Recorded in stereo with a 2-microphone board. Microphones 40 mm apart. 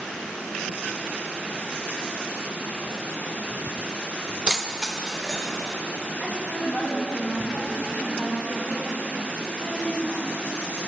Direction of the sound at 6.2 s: 25° left (ahead or behind).